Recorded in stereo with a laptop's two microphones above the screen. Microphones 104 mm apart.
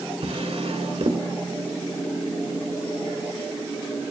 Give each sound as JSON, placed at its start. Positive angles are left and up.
{"t": 0.2, "sound": "a drawer", "side_deg": -75, "distance_m": 1.9}